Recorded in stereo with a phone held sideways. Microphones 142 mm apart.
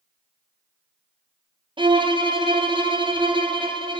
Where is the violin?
35° right (ahead or behind), 0.6 m.